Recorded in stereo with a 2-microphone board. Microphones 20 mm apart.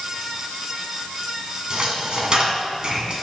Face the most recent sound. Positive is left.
turn(degrees=-50)  # may be behind; listen again after turning